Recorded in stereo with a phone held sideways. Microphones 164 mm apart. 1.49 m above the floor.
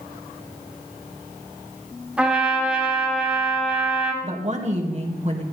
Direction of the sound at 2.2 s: 5° right (ahead or behind).